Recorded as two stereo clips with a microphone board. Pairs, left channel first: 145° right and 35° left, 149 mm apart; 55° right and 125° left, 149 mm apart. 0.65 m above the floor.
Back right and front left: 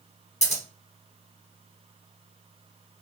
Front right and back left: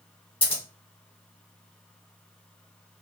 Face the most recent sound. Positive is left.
turn(degrees=-105)